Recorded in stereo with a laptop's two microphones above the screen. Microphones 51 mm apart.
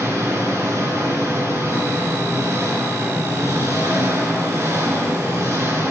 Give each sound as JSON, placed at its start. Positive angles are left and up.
{"t": 0.0, "sound": "an engine running", "side_deg": -70, "distance_m": 5.0}